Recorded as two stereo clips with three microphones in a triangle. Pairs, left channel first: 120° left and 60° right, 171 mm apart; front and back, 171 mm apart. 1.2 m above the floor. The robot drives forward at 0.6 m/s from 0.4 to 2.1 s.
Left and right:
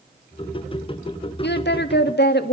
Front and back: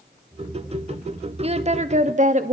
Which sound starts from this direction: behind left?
A woman speaking, at 1.4 s.